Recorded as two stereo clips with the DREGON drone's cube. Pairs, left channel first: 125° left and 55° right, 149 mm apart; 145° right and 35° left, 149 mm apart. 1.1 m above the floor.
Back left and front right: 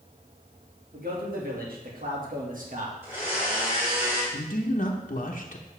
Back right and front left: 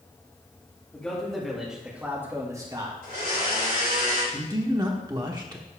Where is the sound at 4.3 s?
95° left, 1.0 m.